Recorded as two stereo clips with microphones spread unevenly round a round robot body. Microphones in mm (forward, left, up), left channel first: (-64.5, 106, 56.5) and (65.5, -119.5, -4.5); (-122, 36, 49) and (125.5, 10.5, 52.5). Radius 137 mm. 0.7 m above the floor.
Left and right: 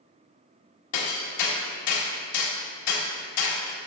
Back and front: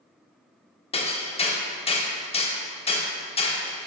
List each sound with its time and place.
0.9 s hammering: 115° left, 1.1 m